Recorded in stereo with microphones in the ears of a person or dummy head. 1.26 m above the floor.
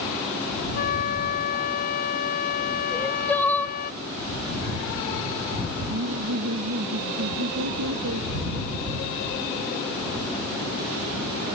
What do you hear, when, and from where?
0.7 s a flute: 50° left (ahead or behind)
2.9 s crying: 10° left (ahead or behind)
5.9 s laughter: 85° right